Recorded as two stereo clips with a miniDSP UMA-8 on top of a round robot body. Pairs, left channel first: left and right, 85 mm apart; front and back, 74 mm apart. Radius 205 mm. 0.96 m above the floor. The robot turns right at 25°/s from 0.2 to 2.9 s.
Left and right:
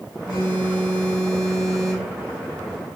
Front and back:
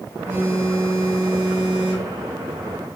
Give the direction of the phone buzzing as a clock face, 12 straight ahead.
8 o'clock.